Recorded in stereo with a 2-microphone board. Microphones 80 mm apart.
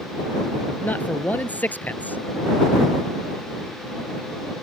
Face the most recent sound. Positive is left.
turn(degrees=20)  # may be behind; listen again after turning